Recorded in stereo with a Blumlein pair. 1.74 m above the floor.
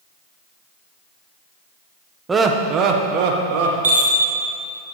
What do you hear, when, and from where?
2.3 s laughter: 15° right, 1.4 m; by 3.7 s 50° right, 2 m
3.8 s a chime: 65° right, 2 m